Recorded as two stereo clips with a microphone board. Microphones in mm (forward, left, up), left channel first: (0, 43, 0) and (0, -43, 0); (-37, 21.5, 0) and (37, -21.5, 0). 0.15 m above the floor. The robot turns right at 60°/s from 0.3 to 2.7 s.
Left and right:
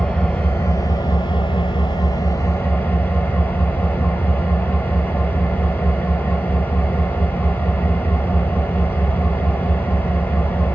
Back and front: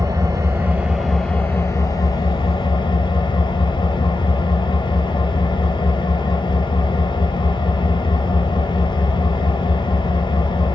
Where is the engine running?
15° left, 0.9 m; by 10.8 s 160° left, 0.9 m.